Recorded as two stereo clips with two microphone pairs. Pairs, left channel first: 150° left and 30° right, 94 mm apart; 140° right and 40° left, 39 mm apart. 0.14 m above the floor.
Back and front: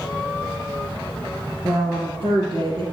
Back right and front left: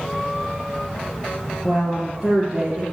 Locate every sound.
1.6 s a woman speaking: 70° right, 3 m; by 2.8 s 30° right, 2.5 m